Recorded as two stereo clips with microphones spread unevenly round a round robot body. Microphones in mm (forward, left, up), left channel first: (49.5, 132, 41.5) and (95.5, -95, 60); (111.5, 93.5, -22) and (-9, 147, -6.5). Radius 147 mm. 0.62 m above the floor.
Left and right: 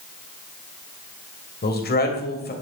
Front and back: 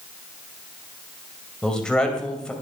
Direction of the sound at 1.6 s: 60° left.